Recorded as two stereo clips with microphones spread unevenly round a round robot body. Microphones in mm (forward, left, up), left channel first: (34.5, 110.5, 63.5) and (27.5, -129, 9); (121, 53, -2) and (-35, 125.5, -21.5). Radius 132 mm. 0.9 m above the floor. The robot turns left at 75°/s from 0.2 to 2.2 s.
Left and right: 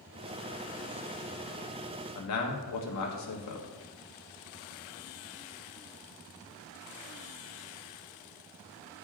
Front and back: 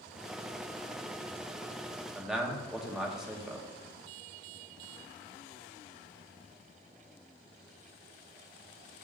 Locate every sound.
2.1 s a man speaking: 75° left, 1.3 m; by 3.7 s 70° left, 1.3 m